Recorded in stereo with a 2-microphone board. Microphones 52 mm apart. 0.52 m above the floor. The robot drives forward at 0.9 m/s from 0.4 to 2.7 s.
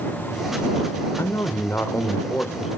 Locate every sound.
1.2 s a man speaking: 55° left (ahead or behind), 1.5 m; by 2.7 s 50° left (ahead or behind), 1.7 m